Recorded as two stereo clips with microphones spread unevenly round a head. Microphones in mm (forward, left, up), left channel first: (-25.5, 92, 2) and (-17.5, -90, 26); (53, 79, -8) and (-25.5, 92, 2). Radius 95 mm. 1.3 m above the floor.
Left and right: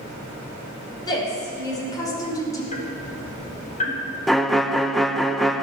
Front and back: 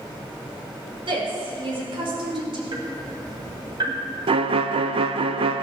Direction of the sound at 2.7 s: 145° left.